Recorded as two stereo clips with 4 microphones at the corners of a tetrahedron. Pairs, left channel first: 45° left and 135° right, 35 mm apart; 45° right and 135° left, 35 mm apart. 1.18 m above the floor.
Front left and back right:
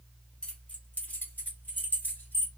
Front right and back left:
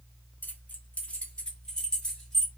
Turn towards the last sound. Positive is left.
turn(degrees=35)